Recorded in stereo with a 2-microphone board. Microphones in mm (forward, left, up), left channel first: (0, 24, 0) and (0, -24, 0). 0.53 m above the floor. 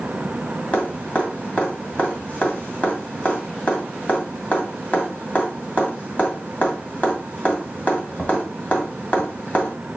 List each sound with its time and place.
0.7 s dripping: 35° left (ahead or behind), 2 m